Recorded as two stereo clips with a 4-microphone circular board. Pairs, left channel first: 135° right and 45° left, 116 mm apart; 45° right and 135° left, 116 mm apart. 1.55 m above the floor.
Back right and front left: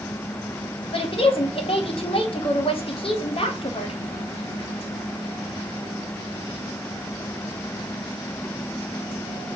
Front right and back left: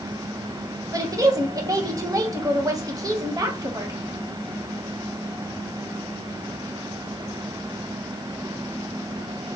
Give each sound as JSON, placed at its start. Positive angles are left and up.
{"t": 0.9, "sound": "a woman speaking", "azimuth_deg": -170, "distance_m": 0.7}